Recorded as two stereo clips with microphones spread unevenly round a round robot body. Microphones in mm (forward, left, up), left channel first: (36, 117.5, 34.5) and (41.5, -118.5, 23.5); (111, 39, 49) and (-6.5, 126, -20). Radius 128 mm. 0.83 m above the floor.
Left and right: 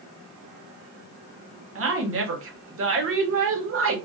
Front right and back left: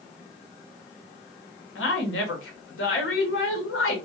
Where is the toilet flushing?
No toilet flushing in this recording.